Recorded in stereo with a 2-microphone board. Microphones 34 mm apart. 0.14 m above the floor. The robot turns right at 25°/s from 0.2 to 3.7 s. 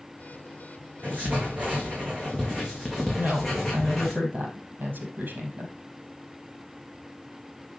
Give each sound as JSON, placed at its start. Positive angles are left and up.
{"t": 1.0, "sound": "writing", "azimuth_deg": -60, "distance_m": 3.5}
{"t": 3.2, "sound": "a woman speaking", "side_deg": -70, "distance_m": 4.0}